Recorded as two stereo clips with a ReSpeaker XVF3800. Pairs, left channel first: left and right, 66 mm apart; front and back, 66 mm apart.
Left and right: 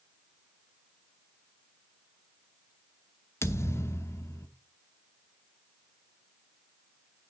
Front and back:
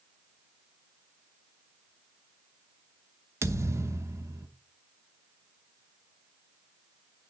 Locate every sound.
3.4 s a thud: 140° left, 0.9 m